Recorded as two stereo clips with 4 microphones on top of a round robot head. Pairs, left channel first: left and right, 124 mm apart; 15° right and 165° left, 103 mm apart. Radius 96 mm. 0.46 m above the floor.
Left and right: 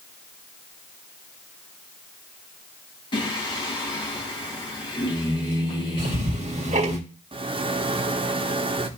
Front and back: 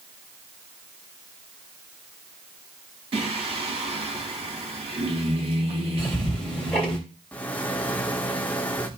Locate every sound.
3.1 s singing: 140° left, 3.5 m
6.0 s ticking: 95° right, 3 m
7.3 s a rattle: 85° right, 1.2 m